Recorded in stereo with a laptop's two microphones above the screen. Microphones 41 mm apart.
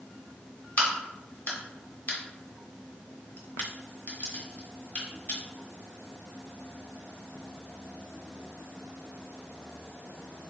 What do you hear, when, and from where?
0.8 s a crack: 50° left (ahead or behind), 1.5 m